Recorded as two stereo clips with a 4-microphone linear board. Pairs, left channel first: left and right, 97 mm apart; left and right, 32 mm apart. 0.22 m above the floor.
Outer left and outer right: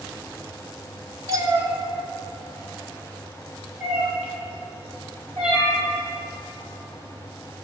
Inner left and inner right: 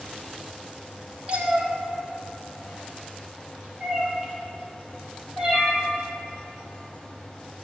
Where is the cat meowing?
35° right (ahead or behind), 1.4 m; by 5.8 s 5° right (ahead or behind), 4 m.